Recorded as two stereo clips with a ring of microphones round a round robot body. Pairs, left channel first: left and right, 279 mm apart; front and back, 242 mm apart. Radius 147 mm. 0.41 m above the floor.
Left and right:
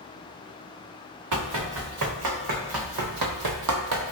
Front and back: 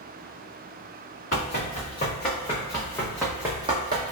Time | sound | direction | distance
1.3 | running footsteps | 65° right | 1.9 m